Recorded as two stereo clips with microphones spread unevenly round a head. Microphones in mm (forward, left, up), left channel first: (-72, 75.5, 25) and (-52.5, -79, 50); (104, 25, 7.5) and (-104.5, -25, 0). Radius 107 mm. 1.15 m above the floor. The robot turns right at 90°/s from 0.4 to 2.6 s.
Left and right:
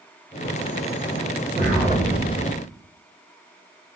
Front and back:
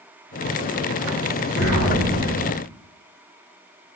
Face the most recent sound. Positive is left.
turn(degrees=60)